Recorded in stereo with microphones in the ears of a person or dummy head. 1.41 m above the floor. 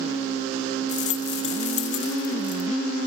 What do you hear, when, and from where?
0.9 s a rattle: 45° left (ahead or behind)